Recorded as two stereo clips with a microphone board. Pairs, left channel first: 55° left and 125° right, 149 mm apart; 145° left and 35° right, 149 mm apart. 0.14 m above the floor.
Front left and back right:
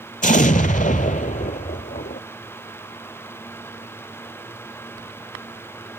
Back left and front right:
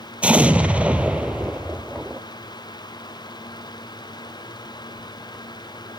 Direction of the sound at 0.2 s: 45° left.